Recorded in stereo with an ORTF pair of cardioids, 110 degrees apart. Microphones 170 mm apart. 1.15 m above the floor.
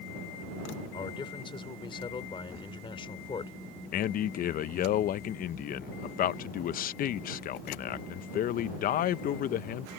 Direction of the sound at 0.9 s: 30° left.